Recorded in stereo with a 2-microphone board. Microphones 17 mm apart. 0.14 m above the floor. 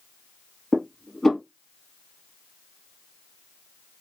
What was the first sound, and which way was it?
Dishes clattering, 25° left (ahead or behind).